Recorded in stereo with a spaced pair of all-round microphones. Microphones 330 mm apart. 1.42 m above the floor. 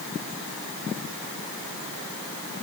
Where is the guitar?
No guitar in this recording.